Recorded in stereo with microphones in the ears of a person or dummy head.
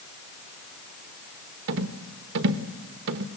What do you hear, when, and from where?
1.7 s a rattle: 65° right (ahead or behind), 1.0 m